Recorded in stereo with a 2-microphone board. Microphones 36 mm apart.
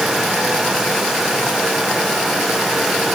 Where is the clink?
I don't hear a clink.